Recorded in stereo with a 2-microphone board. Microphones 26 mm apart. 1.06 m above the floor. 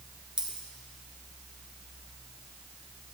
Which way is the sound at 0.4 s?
40° right (ahead or behind).